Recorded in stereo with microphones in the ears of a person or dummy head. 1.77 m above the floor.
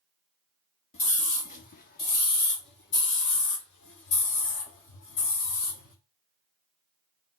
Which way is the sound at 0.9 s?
40° left (ahead or behind).